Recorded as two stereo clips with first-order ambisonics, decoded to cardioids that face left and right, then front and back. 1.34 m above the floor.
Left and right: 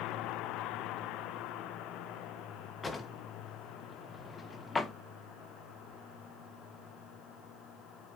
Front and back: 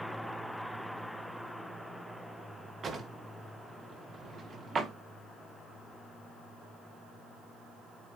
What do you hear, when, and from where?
2.8 s a drawer: 155° left, 0.6 m